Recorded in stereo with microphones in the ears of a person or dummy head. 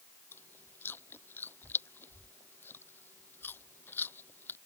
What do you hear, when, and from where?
0.3 s chewing: 10° left (ahead or behind)